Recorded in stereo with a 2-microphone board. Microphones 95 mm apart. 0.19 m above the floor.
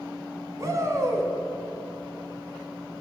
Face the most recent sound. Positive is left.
turn(degrees=-35)  # may be behind; listen again after turning